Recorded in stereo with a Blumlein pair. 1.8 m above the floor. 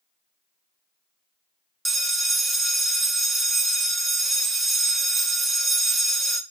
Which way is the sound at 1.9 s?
10° right.